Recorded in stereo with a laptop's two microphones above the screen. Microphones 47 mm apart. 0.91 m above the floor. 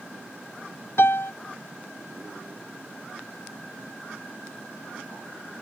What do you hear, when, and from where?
1.0 s a piano: 75° left (ahead or behind)